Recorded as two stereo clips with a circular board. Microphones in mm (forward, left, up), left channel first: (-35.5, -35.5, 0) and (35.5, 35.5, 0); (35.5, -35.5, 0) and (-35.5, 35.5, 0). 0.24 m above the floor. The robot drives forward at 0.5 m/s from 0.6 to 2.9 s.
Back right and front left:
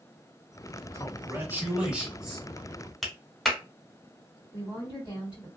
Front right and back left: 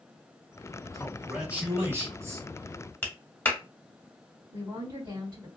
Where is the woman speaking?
170° right, 1.9 m.